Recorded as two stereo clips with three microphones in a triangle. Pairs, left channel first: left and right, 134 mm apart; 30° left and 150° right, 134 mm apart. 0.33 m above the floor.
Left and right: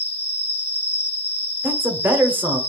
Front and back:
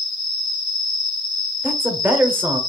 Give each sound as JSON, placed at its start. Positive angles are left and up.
{"t": 0.0, "sound": "an insect", "azimuth_deg": 75, "distance_m": 1.0}
{"t": 1.6, "sound": "a man speaking", "azimuth_deg": -120, "distance_m": 0.8}